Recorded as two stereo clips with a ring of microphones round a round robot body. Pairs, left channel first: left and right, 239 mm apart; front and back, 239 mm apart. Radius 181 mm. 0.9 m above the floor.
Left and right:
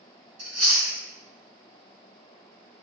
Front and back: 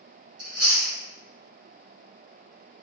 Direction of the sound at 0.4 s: 140° right.